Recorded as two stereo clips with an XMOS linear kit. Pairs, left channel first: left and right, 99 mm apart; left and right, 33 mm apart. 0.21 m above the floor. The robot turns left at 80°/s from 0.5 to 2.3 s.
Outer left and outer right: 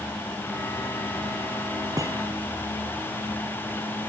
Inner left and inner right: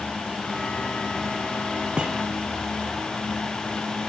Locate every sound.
2.0 s a thud: 40° right (ahead or behind), 2.5 m; by 2.2 s 15° right (ahead or behind), 2.5 m